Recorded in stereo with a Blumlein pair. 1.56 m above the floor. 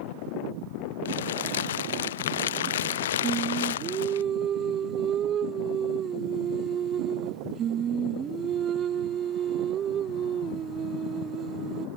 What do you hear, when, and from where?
1.1 s crumpling: 60° left
3.2 s singing: 30° right